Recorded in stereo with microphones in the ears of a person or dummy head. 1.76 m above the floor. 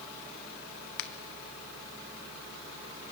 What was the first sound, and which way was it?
A finger snap, 65° left (ahead or behind).